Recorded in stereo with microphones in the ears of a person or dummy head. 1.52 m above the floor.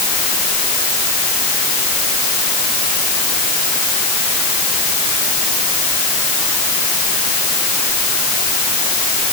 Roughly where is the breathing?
I don't hear breathing.